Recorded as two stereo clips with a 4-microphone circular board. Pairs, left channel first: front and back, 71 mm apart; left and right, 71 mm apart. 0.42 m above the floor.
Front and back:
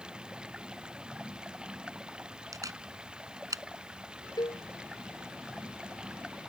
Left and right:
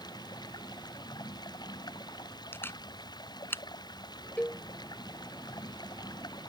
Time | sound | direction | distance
0.0 | running water | 105° left | ?
2.5 | a camera shutter | 145° left | ?
4.4 | a cowbell | 20° left | ?